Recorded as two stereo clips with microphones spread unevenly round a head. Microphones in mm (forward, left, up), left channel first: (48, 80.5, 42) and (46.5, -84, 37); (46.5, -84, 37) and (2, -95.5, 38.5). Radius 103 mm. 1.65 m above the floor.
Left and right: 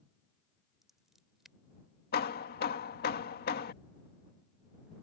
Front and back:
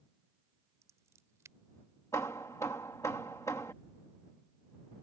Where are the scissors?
Straight behind.